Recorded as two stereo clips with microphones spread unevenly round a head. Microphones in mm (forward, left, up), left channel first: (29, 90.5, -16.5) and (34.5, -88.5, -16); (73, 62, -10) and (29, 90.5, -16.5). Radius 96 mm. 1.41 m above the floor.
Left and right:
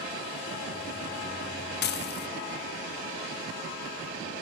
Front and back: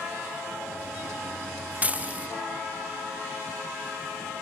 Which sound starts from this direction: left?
Dishes clattering, at 1.8 s.